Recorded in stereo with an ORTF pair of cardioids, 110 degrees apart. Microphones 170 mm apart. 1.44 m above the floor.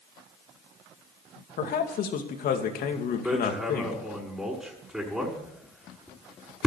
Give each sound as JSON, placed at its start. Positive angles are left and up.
{"t": 1.6, "sound": "a man speaking", "azimuth_deg": 60, "distance_m": 2.5}
{"t": 3.2, "sound": "hammering", "azimuth_deg": 0, "distance_m": 5.5}